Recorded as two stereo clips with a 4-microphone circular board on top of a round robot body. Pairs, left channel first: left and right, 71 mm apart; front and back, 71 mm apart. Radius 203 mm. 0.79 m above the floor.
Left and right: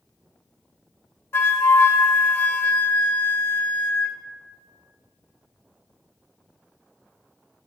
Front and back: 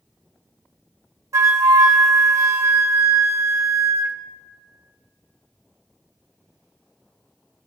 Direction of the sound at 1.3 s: 140° left.